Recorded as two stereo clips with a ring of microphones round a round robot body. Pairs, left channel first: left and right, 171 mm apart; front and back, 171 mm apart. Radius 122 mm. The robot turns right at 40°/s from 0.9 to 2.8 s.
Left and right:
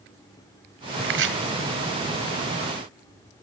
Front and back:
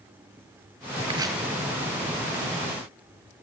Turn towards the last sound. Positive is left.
turn(degrees=-45)